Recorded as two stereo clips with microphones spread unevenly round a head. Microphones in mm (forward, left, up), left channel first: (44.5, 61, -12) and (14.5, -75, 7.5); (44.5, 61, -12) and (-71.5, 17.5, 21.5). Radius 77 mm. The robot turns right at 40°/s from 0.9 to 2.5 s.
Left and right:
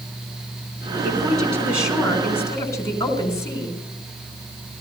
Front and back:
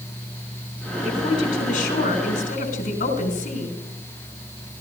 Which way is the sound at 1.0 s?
50° right.